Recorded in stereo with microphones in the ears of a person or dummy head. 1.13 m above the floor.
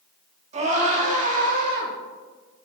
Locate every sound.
0.5 s a scream: 35° right (ahead or behind), 3 m; by 1.9 s 50° right (ahead or behind), 3 m